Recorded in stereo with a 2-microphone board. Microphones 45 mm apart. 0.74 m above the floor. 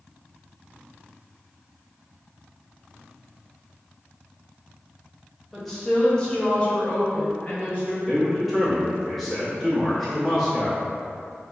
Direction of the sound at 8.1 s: Centre (ahead or behind).